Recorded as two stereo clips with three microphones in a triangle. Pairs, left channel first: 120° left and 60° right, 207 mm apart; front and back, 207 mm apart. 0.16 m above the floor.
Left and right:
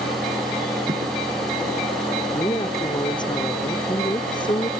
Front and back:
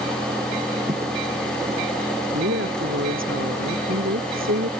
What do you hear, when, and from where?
0.9 s footsteps: 120° right
2.3 s a woman speaking: 170° right